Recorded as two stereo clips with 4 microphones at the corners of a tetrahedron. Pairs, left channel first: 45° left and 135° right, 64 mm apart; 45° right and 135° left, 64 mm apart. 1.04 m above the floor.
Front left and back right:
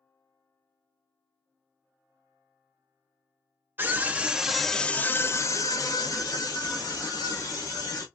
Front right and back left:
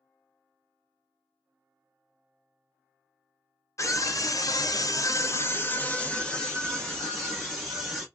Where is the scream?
75° right, 0.8 m; by 8.1 s 45° left, 1.7 m.